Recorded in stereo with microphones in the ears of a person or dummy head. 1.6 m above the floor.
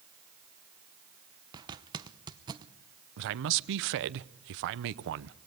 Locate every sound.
1.5 s a zipper: 20° right (ahead or behind), 0.9 m
3.2 s a man speaking: 60° right (ahead or behind), 0.8 m